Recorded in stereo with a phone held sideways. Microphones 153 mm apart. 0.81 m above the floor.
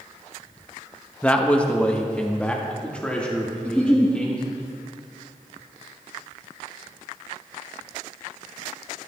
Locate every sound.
1.2 s a man speaking: 10° left (ahead or behind), 0.8 m; by 4.6 s 5° left (ahead or behind), 2.5 m
3.6 s a giggle: 10° left (ahead or behind), 3.5 m